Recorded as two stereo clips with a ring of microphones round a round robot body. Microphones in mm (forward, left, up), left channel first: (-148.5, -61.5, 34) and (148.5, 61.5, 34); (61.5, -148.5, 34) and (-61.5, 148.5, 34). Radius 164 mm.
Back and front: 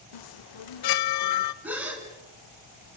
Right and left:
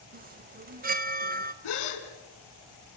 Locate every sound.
0.1 s a chime: straight behind, 0.7 m
1.6 s a gasp: 65° right, 4 m